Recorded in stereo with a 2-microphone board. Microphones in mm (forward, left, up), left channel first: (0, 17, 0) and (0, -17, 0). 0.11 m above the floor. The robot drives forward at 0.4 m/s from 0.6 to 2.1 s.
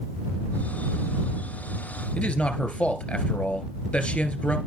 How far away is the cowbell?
No cowbell in this recording.